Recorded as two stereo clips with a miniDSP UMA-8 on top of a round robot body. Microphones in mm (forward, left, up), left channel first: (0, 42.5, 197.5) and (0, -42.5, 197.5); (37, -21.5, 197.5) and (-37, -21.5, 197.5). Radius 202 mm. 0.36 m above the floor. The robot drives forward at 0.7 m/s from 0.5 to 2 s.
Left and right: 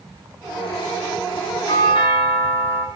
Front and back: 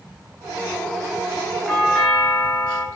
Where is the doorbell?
85° left, 4.5 m.